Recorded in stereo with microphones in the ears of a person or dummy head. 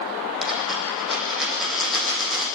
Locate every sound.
0.4 s a dropped coin: 5° right (ahead or behind), 7.5 m